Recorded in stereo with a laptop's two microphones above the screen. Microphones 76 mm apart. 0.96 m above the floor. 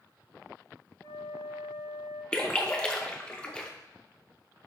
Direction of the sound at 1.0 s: 40° left (ahead or behind).